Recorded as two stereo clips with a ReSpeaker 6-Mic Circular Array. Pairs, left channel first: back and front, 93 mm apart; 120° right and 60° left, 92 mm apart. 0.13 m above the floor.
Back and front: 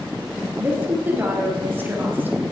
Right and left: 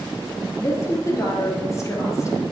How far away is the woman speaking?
About 2.5 m.